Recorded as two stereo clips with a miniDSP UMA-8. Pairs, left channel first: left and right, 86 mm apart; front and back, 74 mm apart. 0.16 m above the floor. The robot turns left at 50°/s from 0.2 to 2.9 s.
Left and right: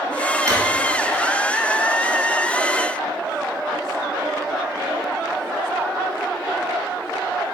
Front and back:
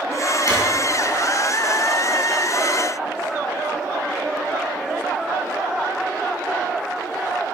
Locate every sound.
0.5 s a drawer: 40° right, 1.5 m; by 0.6 s 45° right, 1.5 m